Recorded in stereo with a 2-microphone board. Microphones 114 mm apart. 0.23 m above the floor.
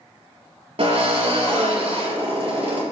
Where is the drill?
60° right (ahead or behind), 4.5 m.